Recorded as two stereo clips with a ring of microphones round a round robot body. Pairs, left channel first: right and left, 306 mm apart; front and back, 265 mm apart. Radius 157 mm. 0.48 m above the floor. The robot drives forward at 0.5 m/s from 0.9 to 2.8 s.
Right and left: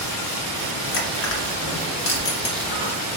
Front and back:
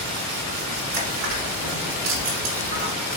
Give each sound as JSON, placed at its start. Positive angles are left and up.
{"t": 0.9, "sound": "crushing", "azimuth_deg": -135, "distance_m": 1.3}